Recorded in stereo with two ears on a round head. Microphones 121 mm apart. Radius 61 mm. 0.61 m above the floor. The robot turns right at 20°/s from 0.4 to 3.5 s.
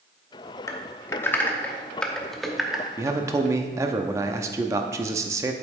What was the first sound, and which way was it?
Typing on a keyboard, 25° left (ahead or behind).